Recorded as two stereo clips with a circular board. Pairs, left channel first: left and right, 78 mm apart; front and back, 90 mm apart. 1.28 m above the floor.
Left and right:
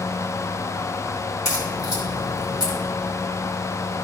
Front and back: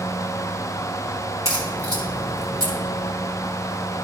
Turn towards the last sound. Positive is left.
turn(degrees=130)